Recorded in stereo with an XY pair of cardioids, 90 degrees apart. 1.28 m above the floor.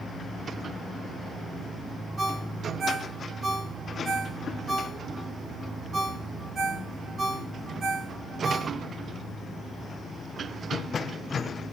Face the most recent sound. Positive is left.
turn(degrees=-45)